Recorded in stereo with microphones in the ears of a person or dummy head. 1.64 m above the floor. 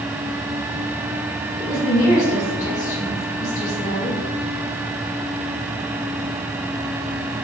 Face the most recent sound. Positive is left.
turn(degrees=45)  # may be behind; listen again after turning